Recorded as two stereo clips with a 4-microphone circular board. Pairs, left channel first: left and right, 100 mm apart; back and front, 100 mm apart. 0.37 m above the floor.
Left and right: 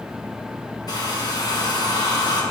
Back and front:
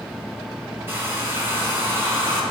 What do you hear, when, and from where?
0.9 s a hair dryer: 60° left, 2 m